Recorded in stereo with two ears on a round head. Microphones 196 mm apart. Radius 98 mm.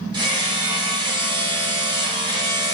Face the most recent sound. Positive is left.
turn(degrees=-20)  # may be behind; listen again after turning